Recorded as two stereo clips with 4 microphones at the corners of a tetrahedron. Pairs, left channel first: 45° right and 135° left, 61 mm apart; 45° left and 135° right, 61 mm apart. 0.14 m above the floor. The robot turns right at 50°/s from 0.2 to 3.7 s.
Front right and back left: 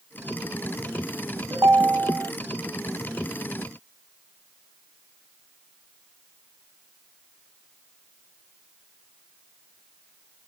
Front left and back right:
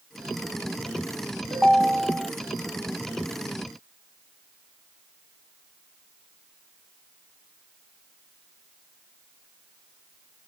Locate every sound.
1.5 s a ringtone: 125° left, 2.0 m; by 2.3 s 165° left, 2.0 m